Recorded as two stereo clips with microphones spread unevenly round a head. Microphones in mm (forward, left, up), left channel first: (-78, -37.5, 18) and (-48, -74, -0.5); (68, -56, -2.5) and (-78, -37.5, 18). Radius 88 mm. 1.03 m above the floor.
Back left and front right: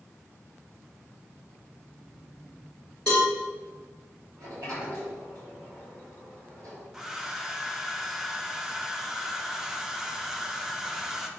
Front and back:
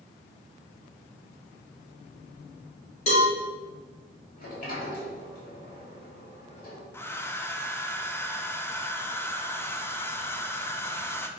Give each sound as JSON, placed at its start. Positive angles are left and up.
{"t": 3.1, "sound": "a cowbell", "azimuth_deg": 40, "distance_m": 2.5}
{"t": 4.4, "sound": "a sliding door", "azimuth_deg": -30, "distance_m": 4.0}
{"t": 6.9, "sound": "a hair dryer", "azimuth_deg": -50, "distance_m": 0.9}